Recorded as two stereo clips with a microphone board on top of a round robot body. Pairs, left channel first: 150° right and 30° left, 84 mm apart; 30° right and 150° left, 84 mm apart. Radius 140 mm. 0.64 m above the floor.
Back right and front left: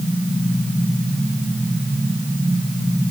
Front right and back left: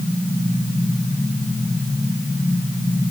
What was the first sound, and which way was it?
Only background noise.